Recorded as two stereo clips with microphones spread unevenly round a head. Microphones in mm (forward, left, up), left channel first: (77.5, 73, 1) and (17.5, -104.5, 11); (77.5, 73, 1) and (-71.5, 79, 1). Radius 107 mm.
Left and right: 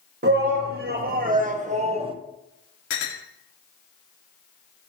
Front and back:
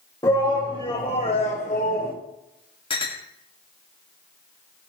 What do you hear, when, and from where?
0.2 s a shout: 75° right, 2.5 m; by 2.1 s 45° right, 1.2 m
2.9 s a clink: 55° left, 2.0 m